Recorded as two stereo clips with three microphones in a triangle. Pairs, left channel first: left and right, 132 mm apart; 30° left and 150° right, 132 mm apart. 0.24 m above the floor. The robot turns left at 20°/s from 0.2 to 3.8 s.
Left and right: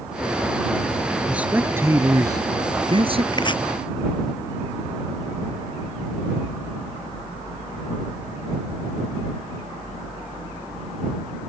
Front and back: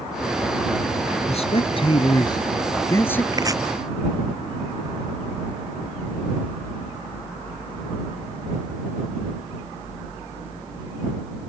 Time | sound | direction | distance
1.3 | a man speaking | 10° right | ?
3.3 | chopping | 150° left | ?